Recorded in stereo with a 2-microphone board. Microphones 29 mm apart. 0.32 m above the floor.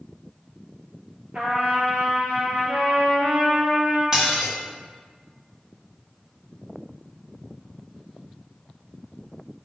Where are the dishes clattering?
25° right (ahead or behind), 1.8 m.